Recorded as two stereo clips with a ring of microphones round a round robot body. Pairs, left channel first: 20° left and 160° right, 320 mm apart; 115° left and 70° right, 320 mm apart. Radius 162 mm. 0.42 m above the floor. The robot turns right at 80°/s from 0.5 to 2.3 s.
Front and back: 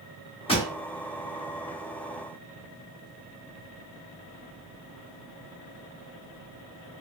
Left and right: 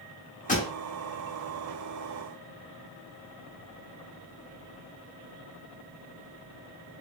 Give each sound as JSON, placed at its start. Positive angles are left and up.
{"t": 0.5, "sound": "a pop", "azimuth_deg": 75, "distance_m": 0.9}